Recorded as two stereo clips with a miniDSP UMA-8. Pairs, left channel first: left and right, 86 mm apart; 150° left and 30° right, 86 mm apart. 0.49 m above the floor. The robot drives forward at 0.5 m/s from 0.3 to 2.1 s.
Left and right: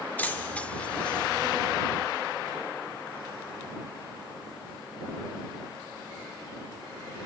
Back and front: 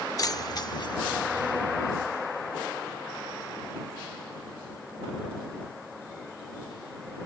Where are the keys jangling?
150° left; by 1.5 s 170° left.